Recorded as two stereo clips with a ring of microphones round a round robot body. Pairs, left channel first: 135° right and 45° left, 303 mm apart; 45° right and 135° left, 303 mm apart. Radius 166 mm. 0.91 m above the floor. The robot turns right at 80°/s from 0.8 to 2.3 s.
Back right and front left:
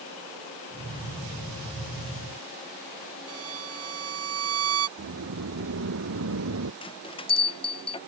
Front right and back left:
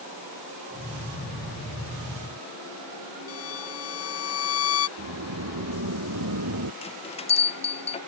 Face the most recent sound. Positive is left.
turn(degrees=-85)